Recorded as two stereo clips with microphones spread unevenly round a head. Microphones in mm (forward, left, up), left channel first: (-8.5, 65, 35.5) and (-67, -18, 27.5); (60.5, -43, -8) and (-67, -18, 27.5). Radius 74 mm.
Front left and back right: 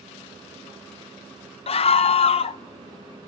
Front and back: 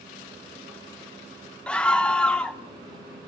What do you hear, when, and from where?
1.7 s a scream: 60° left, 0.6 m